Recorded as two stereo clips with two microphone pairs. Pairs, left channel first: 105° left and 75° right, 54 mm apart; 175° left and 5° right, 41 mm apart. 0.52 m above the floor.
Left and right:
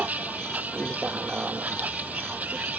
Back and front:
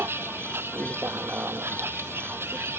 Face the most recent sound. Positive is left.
turn(degrees=-15)